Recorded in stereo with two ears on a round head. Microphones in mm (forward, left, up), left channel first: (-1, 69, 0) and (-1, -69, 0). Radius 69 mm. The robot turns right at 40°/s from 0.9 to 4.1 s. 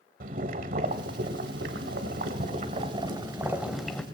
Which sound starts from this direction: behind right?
Boiling, at 0.2 s.